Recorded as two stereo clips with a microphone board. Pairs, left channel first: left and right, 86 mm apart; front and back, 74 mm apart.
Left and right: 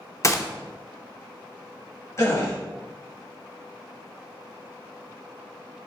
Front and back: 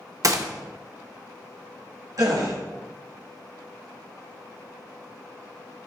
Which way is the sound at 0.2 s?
145° left.